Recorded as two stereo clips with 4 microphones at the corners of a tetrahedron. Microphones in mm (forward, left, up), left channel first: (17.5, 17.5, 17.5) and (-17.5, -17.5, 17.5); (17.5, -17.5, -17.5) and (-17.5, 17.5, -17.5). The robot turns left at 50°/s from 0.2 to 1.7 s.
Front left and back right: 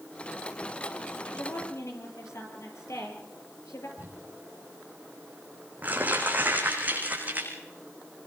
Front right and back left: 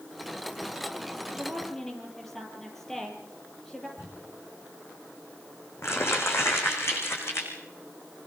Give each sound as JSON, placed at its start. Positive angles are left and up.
{"t": 1.3, "sound": "a woman speaking", "azimuth_deg": 60, "distance_m": 7.0}
{"t": 4.0, "sound": "crumpling", "azimuth_deg": -80, "distance_m": 6.0}